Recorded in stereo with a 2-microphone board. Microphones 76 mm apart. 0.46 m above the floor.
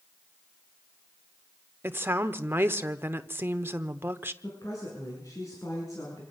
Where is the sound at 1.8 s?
30° right (ahead or behind), 1.0 m.